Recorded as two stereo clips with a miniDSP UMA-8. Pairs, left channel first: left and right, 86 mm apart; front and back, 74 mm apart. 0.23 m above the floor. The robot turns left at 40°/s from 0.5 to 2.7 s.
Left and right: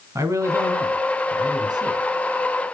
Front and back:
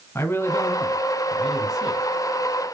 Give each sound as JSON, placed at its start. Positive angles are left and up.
{"t": 0.1, "sound": "a man speaking", "azimuth_deg": -45, "distance_m": 2.0}